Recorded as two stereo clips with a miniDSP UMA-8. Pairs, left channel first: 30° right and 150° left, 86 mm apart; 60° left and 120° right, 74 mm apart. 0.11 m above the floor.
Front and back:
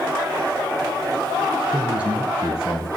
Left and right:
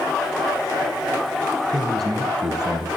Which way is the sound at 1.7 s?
135° right.